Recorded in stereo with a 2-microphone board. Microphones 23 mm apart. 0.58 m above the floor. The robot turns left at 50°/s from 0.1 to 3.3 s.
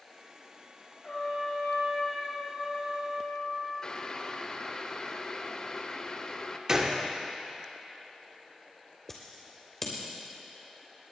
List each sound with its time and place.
1.0 s a trumpet: 135° left, 4.5 m; by 3.7 s 25° left, 4.5 m
3.8 s boiling: 30° left (ahead or behind), 0.7 m
6.7 s a gunshot: 25° right (ahead or behind), 1.3 m
9.1 s scissors: 10° left (ahead or behind), 3 m